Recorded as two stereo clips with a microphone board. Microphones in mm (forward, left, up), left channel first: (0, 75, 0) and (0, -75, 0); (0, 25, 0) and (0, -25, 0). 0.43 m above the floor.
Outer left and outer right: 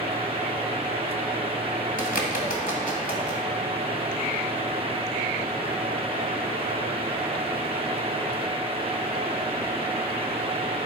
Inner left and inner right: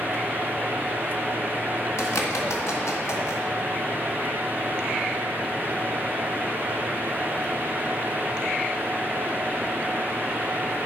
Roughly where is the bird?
Left.